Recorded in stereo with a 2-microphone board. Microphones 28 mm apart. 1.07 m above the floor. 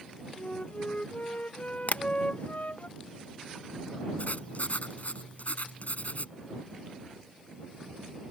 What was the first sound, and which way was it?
A flute, 55° left (ahead or behind).